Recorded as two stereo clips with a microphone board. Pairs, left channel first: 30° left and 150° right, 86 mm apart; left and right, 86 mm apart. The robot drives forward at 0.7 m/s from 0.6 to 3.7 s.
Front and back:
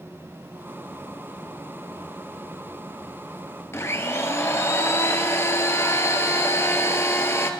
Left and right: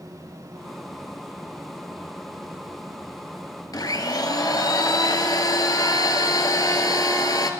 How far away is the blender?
About 1.1 m.